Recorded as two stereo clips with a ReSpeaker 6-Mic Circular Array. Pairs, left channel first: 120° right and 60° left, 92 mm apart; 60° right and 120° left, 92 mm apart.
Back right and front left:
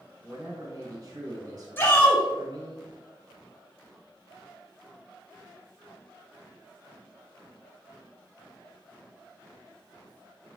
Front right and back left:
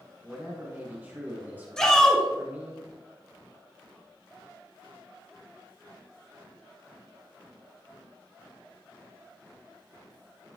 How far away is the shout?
About 1.6 m.